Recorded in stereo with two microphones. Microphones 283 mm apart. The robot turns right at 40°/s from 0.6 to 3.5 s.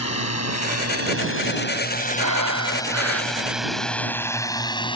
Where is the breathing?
90° right; by 3.8 s 40° right.